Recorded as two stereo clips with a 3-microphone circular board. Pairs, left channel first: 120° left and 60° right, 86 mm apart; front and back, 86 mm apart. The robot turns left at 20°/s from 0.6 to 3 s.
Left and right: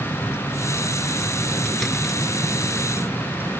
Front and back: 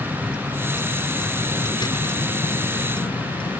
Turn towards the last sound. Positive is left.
turn(degrees=10)